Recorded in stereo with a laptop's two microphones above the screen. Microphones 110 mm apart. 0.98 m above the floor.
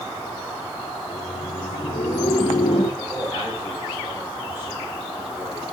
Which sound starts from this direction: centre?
A man speaking, at 3.0 s.